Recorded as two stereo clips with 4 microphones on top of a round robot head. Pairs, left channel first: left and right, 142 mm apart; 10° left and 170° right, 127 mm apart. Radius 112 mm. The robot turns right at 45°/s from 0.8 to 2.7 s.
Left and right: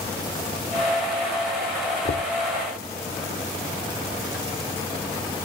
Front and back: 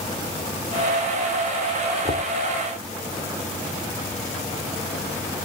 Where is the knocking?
60° left; by 2.3 s 70° left.